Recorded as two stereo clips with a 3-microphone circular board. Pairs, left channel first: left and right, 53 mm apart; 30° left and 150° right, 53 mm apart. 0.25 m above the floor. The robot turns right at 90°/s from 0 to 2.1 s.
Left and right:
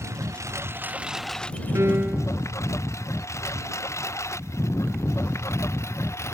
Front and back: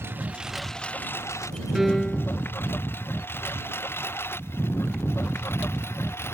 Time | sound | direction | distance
0.0 | a lawn mower | 110° right | ?
1.8 | a piano | 70° right | ?